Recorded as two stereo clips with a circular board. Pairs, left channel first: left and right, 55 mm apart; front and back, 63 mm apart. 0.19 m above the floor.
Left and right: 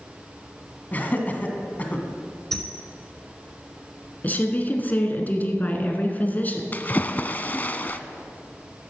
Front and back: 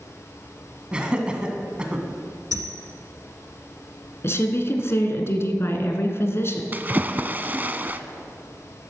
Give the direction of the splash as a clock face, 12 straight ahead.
8 o'clock.